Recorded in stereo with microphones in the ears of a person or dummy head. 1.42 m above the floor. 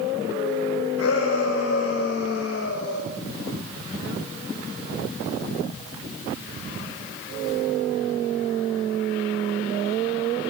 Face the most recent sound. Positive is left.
turn(degrees=85)